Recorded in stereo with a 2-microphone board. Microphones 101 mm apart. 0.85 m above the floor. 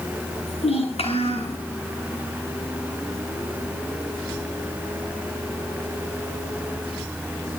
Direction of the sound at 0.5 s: 85° left.